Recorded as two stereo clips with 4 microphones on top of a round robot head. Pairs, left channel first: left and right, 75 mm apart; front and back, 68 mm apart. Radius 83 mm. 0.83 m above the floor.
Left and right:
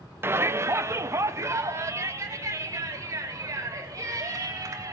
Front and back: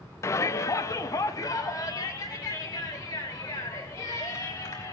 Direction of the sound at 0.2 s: 35° right.